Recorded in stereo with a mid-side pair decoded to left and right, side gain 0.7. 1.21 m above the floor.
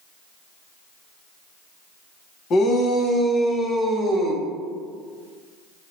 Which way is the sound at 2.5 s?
45° left.